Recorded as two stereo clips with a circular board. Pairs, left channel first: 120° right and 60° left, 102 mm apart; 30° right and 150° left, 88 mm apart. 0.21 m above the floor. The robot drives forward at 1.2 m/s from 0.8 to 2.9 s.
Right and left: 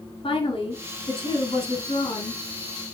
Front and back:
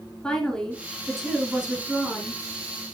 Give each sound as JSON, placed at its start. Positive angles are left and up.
{"t": 0.2, "sound": "a woman speaking", "azimuth_deg": -110, "distance_m": 3.0}